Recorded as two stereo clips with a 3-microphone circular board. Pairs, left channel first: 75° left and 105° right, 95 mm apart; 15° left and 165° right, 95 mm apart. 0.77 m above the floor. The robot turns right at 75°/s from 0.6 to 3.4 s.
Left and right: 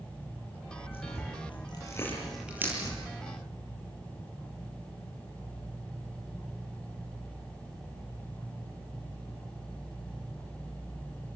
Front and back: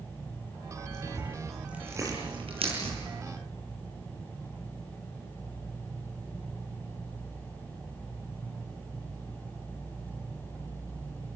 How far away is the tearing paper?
About 8.5 m.